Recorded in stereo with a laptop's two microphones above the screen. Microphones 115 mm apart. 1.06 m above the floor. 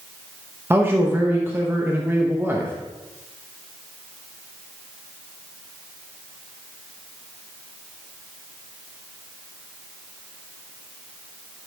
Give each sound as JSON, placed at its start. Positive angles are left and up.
{"t": 0.7, "sound": "a man speaking", "side_deg": -20, "distance_m": 0.9}